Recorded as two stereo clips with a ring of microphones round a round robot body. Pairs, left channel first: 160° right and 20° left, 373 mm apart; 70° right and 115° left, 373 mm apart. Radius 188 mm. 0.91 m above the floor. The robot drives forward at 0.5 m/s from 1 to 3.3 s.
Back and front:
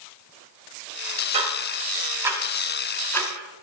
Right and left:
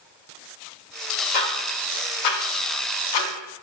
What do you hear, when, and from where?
1.3 s ticking: 50° right, 2.5 m; by 3.6 s 75° right, 2 m